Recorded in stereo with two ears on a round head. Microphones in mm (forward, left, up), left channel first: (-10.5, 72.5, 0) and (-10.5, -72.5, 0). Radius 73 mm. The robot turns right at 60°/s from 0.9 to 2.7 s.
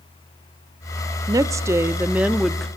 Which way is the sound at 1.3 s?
20° right (ahead or behind).